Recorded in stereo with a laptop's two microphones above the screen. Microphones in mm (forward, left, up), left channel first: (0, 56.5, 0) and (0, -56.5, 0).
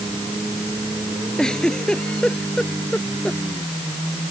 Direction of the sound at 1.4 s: 5° left (ahead or behind).